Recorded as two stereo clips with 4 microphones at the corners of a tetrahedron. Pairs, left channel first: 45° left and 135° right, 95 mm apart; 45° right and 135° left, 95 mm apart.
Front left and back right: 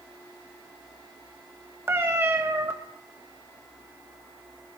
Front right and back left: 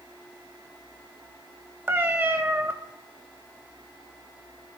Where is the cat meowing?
175° right, 1.2 m.